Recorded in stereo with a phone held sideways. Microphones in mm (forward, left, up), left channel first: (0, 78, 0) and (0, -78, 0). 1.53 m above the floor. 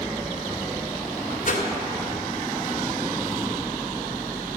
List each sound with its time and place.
1.4 s a whoosh: 60° left (ahead or behind), 2 m